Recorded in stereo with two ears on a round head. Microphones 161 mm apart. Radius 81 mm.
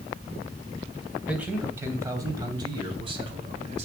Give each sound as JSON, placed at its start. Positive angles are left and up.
{"t": 1.3, "sound": "a man speaking", "side_deg": -5, "distance_m": 2.5}